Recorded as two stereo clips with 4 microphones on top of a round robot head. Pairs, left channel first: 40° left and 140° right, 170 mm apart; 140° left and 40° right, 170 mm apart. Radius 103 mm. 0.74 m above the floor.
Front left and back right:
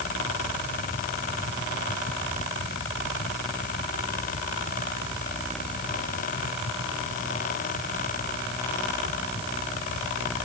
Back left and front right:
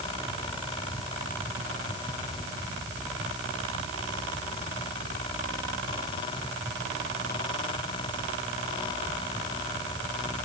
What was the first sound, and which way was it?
Only background noise.